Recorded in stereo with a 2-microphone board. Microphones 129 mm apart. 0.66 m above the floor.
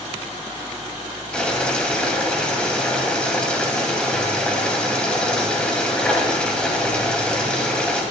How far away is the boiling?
About 2.5 m.